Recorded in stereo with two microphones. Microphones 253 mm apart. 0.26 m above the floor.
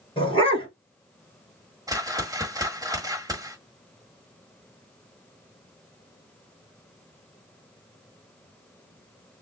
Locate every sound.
0.2 s a dog barking: 20° left (ahead or behind), 1.8 m
1.9 s a whoosh: 15° right (ahead or behind), 1.3 m